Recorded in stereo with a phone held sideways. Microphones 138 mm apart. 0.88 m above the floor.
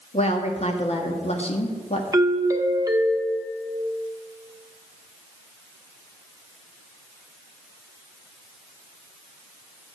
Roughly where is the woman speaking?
Left.